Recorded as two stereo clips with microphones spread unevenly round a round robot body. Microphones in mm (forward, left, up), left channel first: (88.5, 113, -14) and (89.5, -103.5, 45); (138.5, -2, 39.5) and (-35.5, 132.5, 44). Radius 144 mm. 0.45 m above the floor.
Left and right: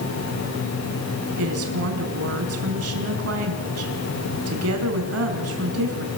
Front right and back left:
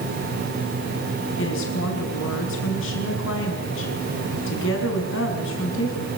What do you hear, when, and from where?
1.4 s a woman speaking: 80° right, 5.5 m